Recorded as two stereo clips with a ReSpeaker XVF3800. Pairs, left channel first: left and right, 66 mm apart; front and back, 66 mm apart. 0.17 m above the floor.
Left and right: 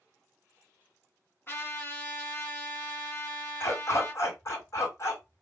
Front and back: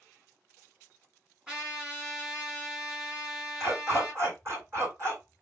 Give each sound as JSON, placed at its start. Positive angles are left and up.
{"t": 1.5, "sound": "a trumpet", "azimuth_deg": 110, "distance_m": 1.8}
{"t": 3.6, "sound": "a dog barking", "azimuth_deg": 130, "distance_m": 2.5}